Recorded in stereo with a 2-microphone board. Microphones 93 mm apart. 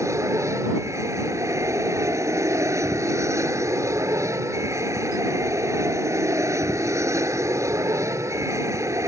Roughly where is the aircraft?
Right.